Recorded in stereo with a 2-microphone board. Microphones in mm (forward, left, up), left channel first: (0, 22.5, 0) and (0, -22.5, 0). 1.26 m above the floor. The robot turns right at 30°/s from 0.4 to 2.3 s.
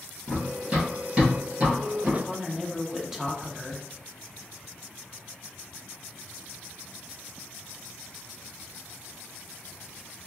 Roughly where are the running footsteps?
Right.